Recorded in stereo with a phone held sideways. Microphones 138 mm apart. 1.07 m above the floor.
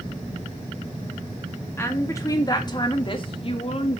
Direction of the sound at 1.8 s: 20° left (ahead or behind).